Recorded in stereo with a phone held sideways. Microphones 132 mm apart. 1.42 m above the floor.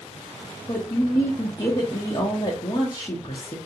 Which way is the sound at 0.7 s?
30° left (ahead or behind).